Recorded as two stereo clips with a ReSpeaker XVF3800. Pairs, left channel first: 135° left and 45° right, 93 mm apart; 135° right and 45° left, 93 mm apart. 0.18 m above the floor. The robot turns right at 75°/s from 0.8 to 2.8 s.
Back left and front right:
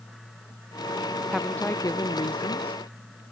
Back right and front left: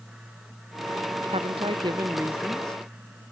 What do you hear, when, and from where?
1.3 s a woman speaking: 40° left; by 2.8 s 155° left